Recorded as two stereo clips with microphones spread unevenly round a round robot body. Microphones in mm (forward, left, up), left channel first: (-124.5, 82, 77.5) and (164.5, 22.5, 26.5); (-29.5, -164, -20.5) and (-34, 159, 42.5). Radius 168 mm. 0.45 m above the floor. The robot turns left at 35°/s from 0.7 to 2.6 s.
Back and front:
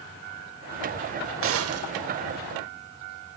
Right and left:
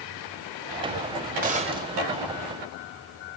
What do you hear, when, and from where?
1.4 s a gunshot: 20° left, 1.6 m; by 1.9 s 5° left, 1.6 m